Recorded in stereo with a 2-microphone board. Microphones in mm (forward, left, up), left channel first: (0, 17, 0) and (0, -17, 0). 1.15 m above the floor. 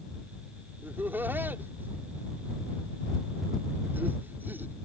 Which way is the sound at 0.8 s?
80° right.